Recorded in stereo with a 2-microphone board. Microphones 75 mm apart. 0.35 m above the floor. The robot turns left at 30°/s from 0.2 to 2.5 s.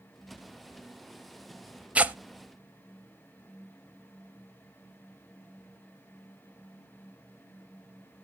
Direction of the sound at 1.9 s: 15° right (ahead or behind).